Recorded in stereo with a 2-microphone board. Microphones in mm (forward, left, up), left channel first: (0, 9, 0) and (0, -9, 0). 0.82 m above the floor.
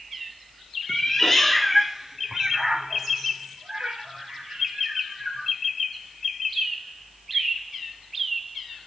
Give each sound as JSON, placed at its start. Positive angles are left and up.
{"t": 0.9, "sound": "a cat meowing", "side_deg": 20, "distance_m": 0.8}